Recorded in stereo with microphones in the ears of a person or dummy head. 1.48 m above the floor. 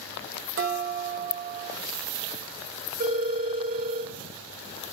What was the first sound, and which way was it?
Dishes clattering, 55° right (ahead or behind).